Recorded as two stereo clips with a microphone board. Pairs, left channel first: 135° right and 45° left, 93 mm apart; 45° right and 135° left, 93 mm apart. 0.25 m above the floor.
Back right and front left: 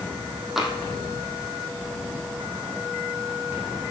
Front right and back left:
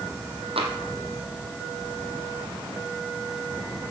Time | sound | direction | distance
0.6 | tapping | 130° left | 2 m